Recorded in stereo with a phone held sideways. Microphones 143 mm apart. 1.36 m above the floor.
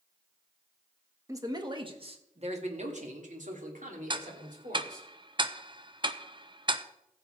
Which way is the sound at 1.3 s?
20° right (ahead or behind).